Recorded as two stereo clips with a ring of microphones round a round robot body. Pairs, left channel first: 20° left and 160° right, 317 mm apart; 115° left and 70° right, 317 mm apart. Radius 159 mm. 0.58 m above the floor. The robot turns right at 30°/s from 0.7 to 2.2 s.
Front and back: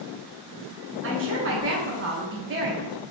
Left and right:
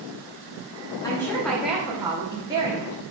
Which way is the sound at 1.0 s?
175° right.